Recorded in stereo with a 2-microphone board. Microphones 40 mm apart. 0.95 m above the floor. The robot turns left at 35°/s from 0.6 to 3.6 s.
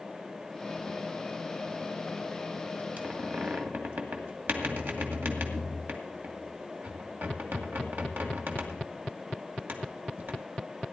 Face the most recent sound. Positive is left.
turn(degrees=-60)  # may be behind; listen again after turning